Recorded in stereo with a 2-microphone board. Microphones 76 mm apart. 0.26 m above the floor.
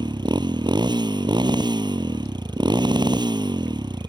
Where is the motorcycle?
75° right (ahead or behind).